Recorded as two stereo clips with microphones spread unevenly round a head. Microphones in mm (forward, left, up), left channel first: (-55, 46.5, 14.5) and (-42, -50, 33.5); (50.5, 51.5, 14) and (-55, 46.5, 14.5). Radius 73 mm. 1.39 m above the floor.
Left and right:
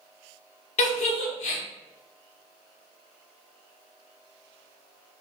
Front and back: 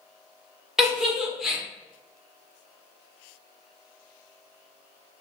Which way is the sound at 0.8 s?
100° left.